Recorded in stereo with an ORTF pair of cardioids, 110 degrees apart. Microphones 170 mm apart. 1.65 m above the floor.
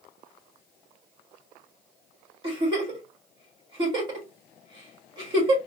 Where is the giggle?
30° right, 3 m.